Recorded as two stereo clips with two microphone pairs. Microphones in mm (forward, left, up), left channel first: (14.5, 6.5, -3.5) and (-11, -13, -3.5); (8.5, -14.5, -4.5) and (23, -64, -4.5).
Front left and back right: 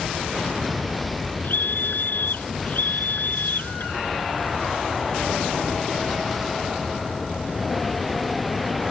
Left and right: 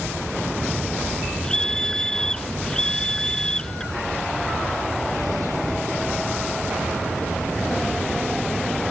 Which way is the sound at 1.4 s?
30° left.